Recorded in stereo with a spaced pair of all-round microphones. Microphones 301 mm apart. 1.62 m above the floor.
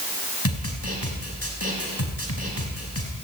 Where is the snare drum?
50° left (ahead or behind), 5 m.